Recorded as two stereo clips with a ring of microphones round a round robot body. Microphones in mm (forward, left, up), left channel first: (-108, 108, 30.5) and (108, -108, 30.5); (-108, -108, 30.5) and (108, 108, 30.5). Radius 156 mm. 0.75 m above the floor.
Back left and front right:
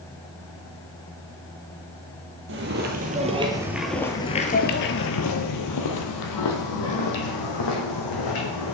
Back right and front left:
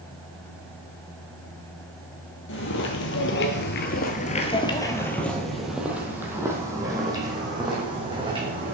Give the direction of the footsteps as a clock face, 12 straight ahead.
3 o'clock.